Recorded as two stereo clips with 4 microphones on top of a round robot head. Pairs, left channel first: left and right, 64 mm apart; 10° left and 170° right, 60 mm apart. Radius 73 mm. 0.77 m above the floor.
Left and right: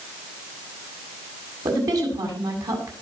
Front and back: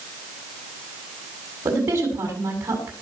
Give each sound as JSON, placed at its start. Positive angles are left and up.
{"t": 1.6, "sound": "a woman speaking", "azimuth_deg": -115, "distance_m": 7.0}